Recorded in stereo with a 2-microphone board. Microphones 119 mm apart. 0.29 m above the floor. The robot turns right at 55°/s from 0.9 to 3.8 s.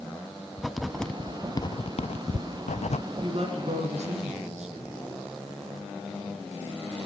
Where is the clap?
No clap in this recording.